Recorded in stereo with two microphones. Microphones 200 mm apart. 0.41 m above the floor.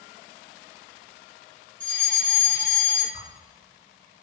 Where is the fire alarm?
10° left (ahead or behind), 2 m.